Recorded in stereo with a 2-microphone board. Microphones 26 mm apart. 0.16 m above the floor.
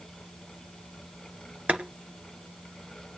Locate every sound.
1.7 s boiling: 60° right (ahead or behind), 2 m